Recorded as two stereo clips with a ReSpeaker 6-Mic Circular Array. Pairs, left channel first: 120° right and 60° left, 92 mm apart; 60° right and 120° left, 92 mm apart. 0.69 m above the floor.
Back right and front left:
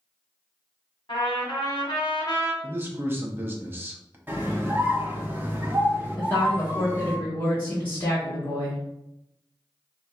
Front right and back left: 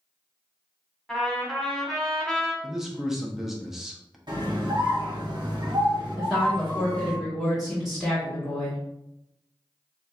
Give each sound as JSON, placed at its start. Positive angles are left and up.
{"t": 1.1, "sound": "a trumpet", "azimuth_deg": -145, "distance_m": 1.3}
{"t": 2.6, "sound": "a man speaking", "azimuth_deg": 40, "distance_m": 0.7}
{"t": 4.3, "sound": "a scream", "azimuth_deg": 125, "distance_m": 1.1}
{"t": 6.2, "sound": "a woman speaking", "azimuth_deg": -150, "distance_m": 1.2}